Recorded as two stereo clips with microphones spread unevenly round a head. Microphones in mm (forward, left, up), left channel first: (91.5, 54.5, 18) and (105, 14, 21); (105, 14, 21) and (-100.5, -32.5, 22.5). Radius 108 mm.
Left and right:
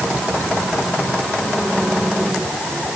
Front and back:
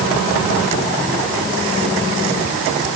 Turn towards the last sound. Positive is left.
No sound to turn to.